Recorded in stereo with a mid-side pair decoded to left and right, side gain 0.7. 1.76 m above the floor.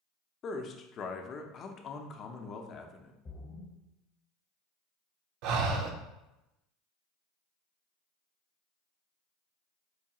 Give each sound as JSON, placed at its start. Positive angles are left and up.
{"t": 0.4, "sound": "a man speaking", "azimuth_deg": 40, "distance_m": 0.6}
{"t": 3.2, "sound": "a splash", "azimuth_deg": 30, "distance_m": 1.0}
{"t": 5.4, "sound": "breathing", "azimuth_deg": -65, "distance_m": 0.6}